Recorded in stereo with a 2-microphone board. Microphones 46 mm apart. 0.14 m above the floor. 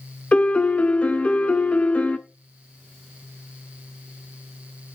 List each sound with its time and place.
0.3 s a piano: 30° left (ahead or behind), 0.7 m